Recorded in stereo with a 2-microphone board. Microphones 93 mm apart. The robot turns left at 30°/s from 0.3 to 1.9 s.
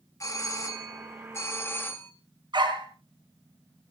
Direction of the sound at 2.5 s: 55° right (ahead or behind).